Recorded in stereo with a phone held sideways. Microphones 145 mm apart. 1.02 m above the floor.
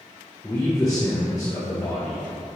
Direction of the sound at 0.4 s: 25° left (ahead or behind).